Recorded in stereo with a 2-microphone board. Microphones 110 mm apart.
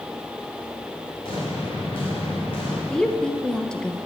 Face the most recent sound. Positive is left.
turn(degrees=5)  # may be behind; listen again after turning